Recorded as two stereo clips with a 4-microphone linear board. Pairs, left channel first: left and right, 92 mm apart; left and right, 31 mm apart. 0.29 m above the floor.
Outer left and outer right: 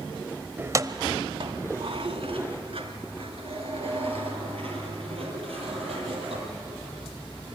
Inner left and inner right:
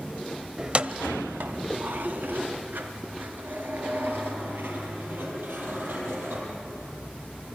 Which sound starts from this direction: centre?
Keys jangling, at 0.6 s.